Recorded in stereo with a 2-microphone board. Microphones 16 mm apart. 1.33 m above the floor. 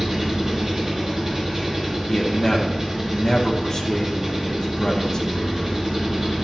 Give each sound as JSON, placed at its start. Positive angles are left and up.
{"t": 0.0, "sound": "an engine running", "side_deg": -35, "distance_m": 4.0}
{"t": 2.1, "sound": "a man speaking", "side_deg": 40, "distance_m": 1.1}